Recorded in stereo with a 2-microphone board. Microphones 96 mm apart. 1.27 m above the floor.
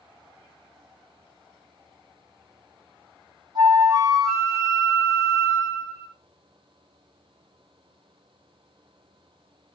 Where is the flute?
40° right (ahead or behind), 0.9 m.